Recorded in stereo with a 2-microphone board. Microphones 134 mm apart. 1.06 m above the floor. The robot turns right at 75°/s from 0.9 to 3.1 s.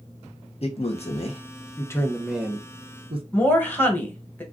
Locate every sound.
0.6 s a man speaking: 50° left (ahead or behind), 0.7 m; by 3.2 s 45° right (ahead or behind), 0.7 m
3.3 s a woman speaking: 15° left (ahead or behind), 1.0 m